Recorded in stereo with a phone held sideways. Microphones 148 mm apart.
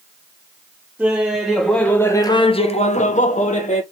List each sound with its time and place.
1.0 s laughter: 10° right (ahead or behind), 1.0 m; by 3.8 s 50° left (ahead or behind), 0.9 m